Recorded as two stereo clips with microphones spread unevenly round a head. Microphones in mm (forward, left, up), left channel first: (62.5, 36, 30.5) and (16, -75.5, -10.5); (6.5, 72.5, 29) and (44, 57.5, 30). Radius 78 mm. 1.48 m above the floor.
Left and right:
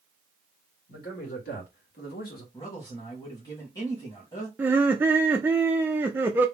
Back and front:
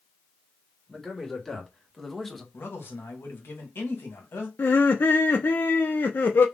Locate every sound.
0.9 s a man speaking: 80° left, 2.5 m; by 2.4 s 75° left, 1.2 m
2.5 s a man speaking: 140° left, 1.6 m
4.6 s laughter: 175° right, 0.5 m